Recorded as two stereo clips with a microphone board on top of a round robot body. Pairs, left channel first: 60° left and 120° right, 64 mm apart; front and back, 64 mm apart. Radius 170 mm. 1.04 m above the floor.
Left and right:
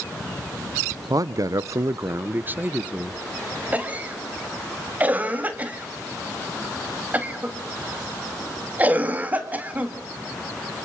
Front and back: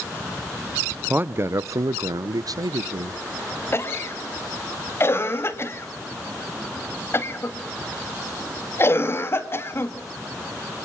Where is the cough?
50° right, 2 m.